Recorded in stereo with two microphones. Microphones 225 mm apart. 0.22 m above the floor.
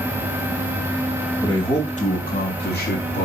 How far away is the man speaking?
About 1.0 m.